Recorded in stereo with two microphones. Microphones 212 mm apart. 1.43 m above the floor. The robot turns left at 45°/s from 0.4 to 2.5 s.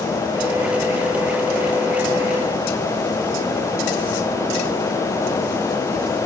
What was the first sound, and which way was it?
Only background noise.